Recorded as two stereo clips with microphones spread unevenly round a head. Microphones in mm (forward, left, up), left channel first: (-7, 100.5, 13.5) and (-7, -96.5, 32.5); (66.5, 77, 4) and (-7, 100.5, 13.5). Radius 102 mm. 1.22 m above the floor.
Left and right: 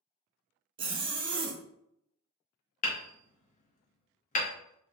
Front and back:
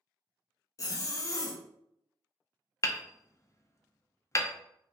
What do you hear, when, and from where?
0.8 s a zipper: 30° right, 0.6 m
2.8 s hammering: 35° left, 0.6 m